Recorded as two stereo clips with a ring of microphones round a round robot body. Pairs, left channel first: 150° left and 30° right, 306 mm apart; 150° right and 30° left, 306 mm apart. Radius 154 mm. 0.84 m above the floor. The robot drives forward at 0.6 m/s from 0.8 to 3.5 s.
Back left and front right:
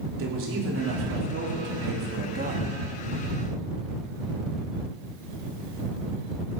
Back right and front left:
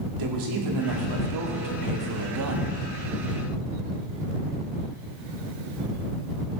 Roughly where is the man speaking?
Ahead.